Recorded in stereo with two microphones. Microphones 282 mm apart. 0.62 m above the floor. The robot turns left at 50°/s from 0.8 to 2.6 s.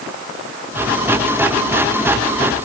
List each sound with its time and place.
Only background noise.